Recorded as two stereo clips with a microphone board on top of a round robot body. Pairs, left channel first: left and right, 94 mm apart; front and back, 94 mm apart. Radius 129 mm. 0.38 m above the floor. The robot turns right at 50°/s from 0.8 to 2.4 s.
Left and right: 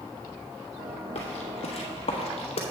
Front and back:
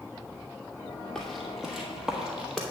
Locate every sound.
1.1 s footsteps: 85° left, 1.2 m; by 2.6 s 90° left, 1.0 m